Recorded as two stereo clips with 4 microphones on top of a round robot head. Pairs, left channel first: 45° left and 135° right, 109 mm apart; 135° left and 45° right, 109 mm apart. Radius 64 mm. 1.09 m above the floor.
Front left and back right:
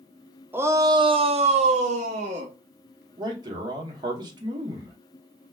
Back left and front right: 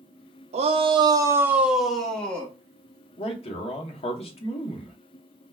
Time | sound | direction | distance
0.5 | a shout | 65° right | 0.6 m
3.2 | a man speaking | 170° left | 0.9 m